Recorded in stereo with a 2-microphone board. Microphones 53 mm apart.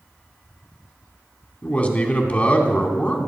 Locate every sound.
1.6 s a man speaking: 30° left (ahead or behind), 1.8 m